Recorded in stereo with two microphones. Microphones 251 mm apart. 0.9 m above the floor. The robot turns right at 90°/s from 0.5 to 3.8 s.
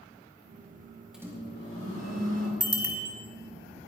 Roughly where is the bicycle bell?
Right.